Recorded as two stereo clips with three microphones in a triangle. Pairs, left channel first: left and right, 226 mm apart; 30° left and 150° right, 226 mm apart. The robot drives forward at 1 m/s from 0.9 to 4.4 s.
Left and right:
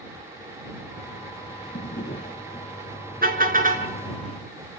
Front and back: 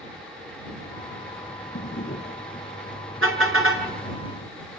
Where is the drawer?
55° left, 4 m; by 2.7 s 70° left, 3.5 m.